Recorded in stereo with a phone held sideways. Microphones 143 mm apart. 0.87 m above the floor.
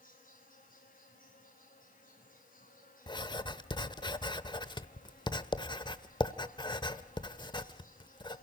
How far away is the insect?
About 7.5 m.